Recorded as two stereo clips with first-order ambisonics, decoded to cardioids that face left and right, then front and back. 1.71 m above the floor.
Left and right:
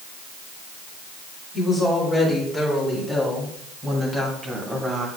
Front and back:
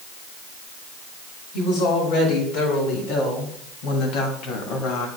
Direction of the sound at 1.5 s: Straight ahead.